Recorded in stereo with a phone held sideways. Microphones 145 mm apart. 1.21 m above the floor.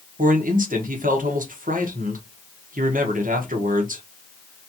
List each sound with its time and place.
0.2 s a man speaking: 70° right (ahead or behind), 1.2 m